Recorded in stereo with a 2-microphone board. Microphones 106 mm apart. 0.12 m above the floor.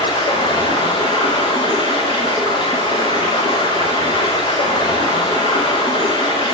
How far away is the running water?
About 4 m.